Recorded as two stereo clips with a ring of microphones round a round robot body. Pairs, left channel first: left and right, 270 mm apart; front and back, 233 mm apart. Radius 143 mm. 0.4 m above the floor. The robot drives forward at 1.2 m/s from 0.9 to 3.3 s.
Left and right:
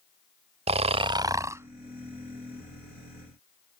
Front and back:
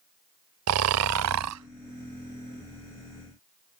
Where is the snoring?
160° right; by 3.8 s 175° right.